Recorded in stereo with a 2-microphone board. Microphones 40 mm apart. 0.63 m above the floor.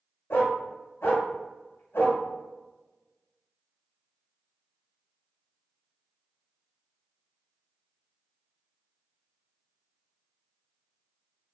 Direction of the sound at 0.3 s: 85° left.